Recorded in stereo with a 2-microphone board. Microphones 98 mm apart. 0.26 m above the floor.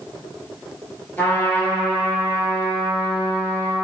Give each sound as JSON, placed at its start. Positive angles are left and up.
{"t": 1.2, "sound": "a trumpet", "side_deg": 20, "distance_m": 1.3}